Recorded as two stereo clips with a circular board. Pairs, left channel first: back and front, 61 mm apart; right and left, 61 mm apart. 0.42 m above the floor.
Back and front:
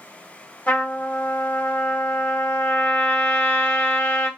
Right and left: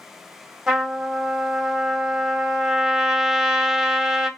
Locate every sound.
0.7 s a trumpet: 160° left, 1.0 m